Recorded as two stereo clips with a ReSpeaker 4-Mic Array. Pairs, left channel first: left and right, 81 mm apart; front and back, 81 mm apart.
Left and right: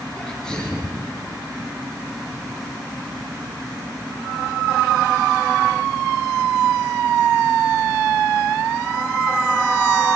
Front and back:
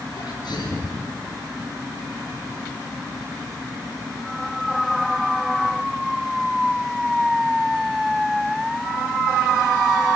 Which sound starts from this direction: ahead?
A sneeze, at 0.2 s.